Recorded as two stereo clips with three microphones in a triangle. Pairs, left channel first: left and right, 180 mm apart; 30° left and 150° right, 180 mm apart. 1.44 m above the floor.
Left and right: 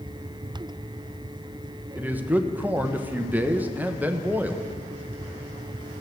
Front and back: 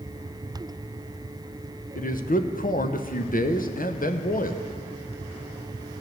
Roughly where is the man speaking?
Ahead.